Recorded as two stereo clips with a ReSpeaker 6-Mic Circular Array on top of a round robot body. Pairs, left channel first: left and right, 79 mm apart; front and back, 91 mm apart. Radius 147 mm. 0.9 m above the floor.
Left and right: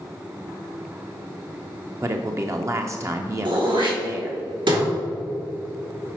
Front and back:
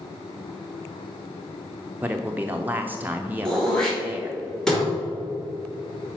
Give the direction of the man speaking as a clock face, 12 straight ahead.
4 o'clock.